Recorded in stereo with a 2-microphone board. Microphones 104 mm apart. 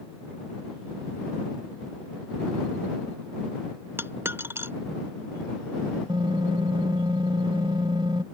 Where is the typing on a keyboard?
55° right (ahead or behind).